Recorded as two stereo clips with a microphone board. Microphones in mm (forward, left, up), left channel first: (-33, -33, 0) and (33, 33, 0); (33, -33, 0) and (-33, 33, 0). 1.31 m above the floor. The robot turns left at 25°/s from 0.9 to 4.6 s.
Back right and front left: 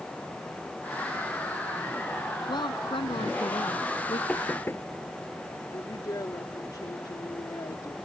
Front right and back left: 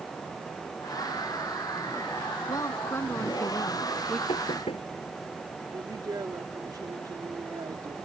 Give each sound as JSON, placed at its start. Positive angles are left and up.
{"t": 2.5, "sound": "a woman speaking", "azimuth_deg": -95}
{"t": 4.3, "sound": "knocking", "azimuth_deg": -60}
{"t": 5.7, "sound": "a woman speaking", "azimuth_deg": 180}